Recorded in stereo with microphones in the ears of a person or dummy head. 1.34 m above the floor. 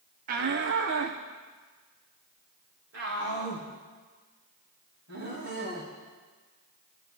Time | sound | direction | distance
0.3 | a shout | 40° right (ahead or behind) | 0.7 m